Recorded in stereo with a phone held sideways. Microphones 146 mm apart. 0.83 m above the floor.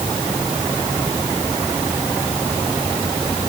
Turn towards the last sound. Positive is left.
No sound to turn to.